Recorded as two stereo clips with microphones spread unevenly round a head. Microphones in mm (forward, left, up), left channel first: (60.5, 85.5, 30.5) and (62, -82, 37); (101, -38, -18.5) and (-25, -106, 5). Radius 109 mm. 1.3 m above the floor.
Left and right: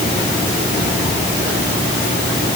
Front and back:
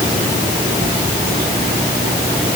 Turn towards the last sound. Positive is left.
No sound to turn to.